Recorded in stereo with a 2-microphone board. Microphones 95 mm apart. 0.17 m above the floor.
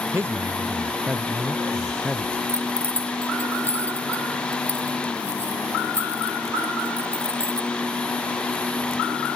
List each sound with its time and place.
0.1 s a man speaking: 25° right (ahead or behind); by 2.4 s 10° left (ahead or behind)
2.5 s keys jangling: 25° right (ahead or behind)